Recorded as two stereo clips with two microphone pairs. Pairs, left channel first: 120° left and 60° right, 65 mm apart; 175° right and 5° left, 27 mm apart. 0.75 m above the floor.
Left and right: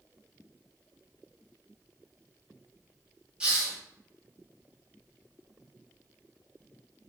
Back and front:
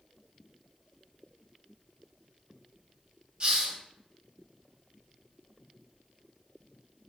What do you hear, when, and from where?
3.4 s a hiss: 10° left, 0.7 m